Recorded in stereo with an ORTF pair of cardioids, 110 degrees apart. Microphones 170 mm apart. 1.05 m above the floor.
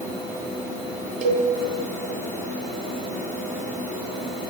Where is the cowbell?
45° right, 3.5 m.